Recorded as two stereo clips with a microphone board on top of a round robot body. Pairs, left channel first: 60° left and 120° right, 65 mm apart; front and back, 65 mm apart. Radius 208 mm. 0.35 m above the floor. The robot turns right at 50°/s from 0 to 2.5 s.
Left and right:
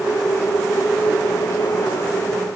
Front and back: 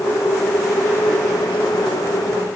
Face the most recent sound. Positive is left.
No sound to turn to.